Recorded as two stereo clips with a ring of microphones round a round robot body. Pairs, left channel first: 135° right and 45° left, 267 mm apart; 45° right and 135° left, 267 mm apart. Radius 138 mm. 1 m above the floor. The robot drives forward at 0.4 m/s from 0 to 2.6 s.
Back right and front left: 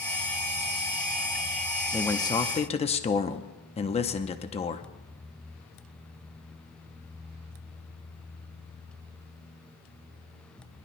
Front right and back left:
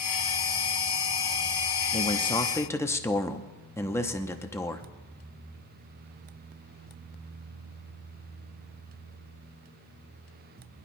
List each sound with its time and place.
1.9 s a man speaking: 60° right, 0.8 m; by 4.8 s 110° right, 0.8 m